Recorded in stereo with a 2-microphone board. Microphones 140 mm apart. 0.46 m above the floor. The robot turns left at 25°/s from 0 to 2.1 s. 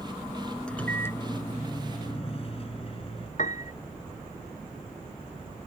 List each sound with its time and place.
0.7 s a microwave: 175° left; by 3.3 s 140° left
3.4 s a piano: 60° left (ahead or behind)